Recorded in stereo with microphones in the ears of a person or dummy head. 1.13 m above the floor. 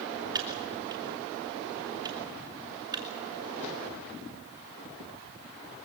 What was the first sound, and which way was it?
Typing on a keyboard, 25° right (ahead or behind).